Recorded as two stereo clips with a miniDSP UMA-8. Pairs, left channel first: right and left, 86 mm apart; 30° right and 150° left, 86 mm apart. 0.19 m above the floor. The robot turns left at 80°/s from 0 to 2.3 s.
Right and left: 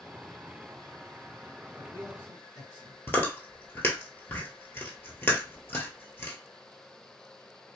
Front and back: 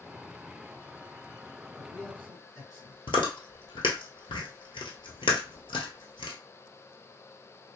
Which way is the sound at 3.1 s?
25° right.